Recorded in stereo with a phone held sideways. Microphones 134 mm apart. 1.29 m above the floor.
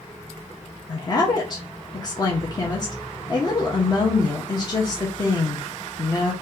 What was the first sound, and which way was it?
A woman speaking, 30° left (ahead or behind).